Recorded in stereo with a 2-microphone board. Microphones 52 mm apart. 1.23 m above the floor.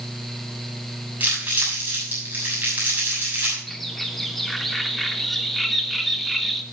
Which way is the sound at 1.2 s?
35° right (ahead or behind).